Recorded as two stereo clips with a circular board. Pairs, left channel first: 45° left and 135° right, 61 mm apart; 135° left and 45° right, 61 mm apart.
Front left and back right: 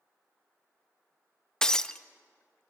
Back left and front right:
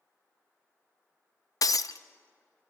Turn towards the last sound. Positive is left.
turn(degrees=125)